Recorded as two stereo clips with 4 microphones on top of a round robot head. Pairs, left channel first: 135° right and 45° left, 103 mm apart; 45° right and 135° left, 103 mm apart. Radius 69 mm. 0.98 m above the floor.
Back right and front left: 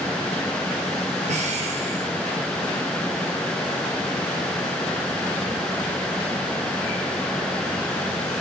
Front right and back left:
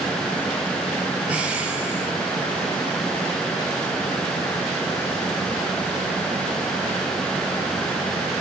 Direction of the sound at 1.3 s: 55° left.